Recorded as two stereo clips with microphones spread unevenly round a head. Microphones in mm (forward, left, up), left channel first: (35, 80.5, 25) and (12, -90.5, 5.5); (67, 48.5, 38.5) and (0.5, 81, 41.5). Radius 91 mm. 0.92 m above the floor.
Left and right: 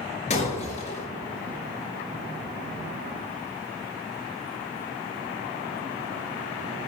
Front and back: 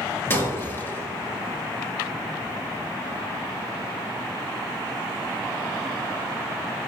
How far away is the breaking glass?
About 5 m.